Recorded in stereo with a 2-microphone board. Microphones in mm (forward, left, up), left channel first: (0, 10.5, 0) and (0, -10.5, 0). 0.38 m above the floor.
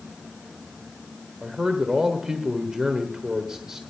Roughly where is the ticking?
No ticking in this recording.